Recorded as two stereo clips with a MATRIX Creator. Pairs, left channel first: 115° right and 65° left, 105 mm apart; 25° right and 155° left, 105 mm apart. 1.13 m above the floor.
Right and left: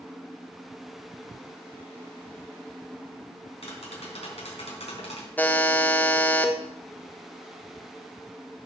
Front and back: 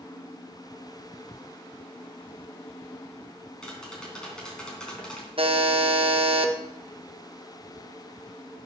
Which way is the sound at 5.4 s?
175° left.